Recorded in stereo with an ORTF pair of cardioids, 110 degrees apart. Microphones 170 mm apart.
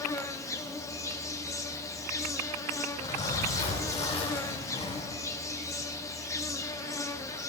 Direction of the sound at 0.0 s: 20° left.